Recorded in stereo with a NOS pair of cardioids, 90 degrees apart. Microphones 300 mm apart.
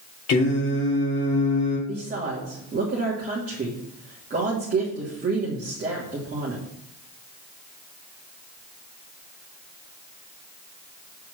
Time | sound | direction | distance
0.3 | singing | 55° left | 3 m
1.9 | a woman speaking | 30° right | 2.5 m